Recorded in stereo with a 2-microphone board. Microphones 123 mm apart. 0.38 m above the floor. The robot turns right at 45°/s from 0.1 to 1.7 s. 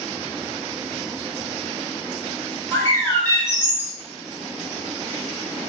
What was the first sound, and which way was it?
A bird, 20° left (ahead or behind).